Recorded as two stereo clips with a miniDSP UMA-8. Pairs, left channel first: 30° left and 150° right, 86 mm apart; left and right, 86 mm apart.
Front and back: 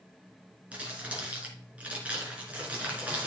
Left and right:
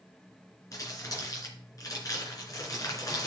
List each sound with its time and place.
0.7 s crumpling: 135° left, 3 m